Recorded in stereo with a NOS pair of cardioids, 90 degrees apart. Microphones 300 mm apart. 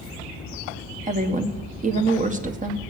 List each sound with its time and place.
1.1 s a woman speaking: 25° right, 1.5 m